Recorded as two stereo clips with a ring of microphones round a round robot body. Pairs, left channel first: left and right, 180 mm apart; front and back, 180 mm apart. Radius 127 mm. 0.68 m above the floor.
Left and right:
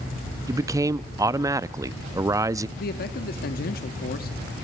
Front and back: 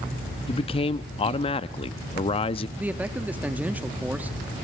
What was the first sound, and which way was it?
A man speaking, 30° right.